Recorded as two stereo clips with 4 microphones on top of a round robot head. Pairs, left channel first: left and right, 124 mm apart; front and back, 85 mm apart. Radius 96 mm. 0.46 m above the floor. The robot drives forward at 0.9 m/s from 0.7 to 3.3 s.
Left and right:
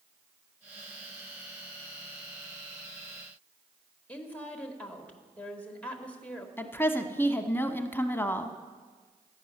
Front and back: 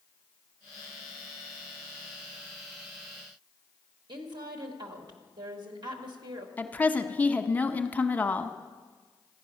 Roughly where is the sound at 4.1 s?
Behind.